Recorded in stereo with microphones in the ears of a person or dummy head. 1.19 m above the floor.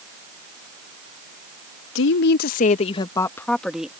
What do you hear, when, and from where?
1.9 s a woman speaking: 70° left (ahead or behind); by 3.9 s 5° right (ahead or behind)